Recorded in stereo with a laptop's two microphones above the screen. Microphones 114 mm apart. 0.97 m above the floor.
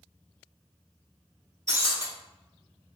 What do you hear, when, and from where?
1.7 s breaking glass: 25° right (ahead or behind), 1.4 m